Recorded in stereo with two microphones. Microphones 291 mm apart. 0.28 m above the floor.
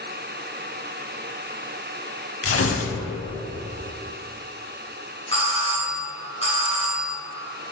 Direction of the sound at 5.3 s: 20° left (ahead or behind).